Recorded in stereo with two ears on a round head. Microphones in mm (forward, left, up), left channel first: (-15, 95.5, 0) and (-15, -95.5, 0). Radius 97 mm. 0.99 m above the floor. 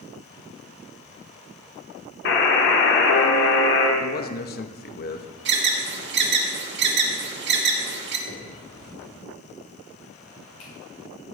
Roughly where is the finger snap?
Left.